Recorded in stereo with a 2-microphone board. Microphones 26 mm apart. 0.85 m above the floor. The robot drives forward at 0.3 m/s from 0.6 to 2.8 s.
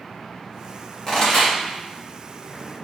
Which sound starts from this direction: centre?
A pop, at 1.1 s.